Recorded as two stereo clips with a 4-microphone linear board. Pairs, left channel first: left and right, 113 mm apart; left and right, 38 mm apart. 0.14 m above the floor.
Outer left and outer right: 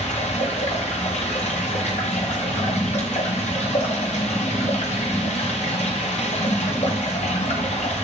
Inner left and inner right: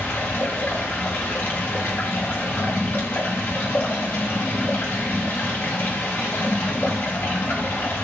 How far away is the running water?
About 7 m.